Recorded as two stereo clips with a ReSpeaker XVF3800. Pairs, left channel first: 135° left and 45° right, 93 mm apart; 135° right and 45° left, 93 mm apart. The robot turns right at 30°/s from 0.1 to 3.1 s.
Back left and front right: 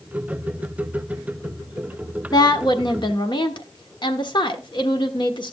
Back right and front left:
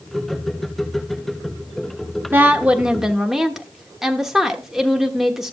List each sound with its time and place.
2.3 s a woman speaking: 105° left, 1.2 m; by 5.5 s 130° left, 1.2 m